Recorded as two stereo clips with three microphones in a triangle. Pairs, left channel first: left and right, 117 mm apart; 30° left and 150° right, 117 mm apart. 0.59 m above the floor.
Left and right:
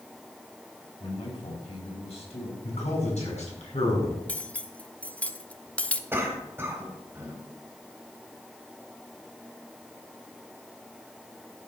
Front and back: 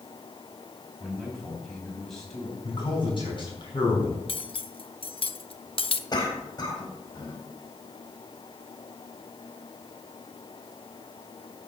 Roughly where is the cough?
Ahead.